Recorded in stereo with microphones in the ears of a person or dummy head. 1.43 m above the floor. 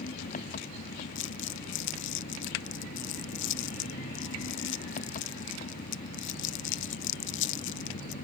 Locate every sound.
0.0 s an engine running: 45° left (ahead or behind)
1.1 s crumpling: 60° left (ahead or behind)